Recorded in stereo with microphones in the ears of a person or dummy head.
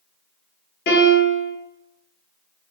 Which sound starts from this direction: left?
A piano, at 0.9 s.